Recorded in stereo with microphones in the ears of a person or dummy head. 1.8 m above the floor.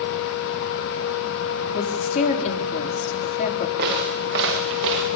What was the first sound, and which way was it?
A woman speaking, 45° left (ahead or behind).